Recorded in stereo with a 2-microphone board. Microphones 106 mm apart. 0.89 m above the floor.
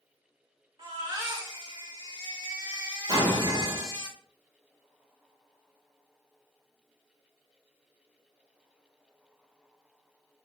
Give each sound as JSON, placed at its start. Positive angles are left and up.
{"t": 0.8, "sound": "a baby crying", "side_deg": -40, "distance_m": 1.7}
{"t": 3.1, "sound": "an explosion", "side_deg": -40, "distance_m": 1.9}